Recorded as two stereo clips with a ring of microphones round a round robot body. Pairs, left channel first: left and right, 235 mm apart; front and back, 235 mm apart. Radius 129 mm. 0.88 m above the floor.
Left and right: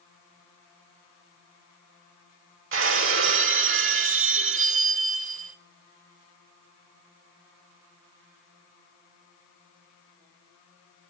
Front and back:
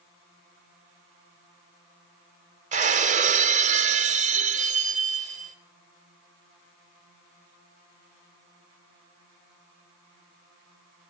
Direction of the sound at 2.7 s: 120° right.